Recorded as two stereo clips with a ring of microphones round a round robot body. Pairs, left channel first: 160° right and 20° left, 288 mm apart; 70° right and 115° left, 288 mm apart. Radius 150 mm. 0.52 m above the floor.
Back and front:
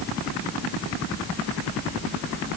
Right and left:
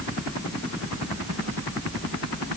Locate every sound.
Only background noise.